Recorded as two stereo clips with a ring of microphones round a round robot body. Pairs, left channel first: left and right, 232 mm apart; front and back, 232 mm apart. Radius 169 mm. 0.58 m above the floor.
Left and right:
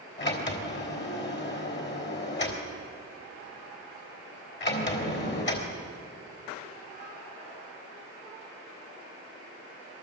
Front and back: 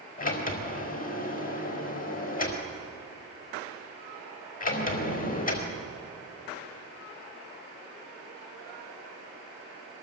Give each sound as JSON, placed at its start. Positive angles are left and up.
{"t": 0.2, "sound": "a sliding door", "azimuth_deg": 50, "distance_m": 4.0}